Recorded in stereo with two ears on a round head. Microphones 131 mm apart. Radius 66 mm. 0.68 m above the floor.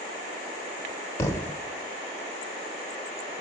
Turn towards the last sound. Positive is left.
turn(degrees=20)  # may be behind; listen again after turning